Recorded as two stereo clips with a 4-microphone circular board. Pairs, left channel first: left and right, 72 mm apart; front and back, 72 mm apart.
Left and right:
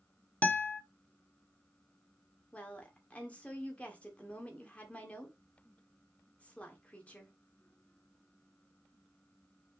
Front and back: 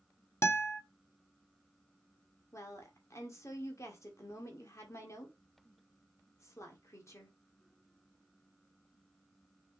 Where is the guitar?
30° left, 1.1 m.